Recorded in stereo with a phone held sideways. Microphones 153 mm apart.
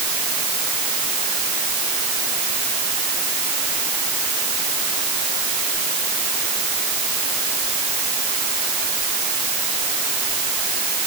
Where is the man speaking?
No man speaking in this recording.